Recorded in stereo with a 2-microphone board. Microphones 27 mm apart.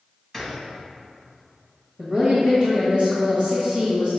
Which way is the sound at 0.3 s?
5° right (ahead or behind).